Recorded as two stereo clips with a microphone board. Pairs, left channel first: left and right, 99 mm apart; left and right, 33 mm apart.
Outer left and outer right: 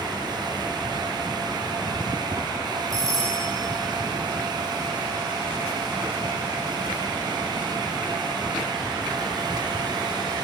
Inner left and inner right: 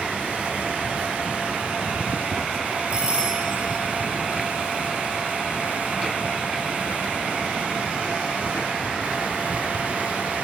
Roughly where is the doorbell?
Right.